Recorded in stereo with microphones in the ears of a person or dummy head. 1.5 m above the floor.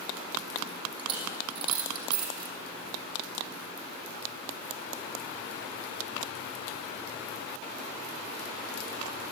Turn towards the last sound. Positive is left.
turn(degrees=-30)  # may be behind; listen again after turning